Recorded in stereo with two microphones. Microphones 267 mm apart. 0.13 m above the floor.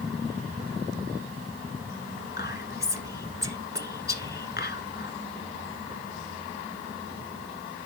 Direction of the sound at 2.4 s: 40° left (ahead or behind).